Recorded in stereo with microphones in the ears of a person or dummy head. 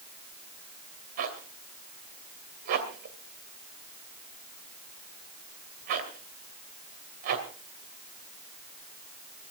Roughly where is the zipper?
Right.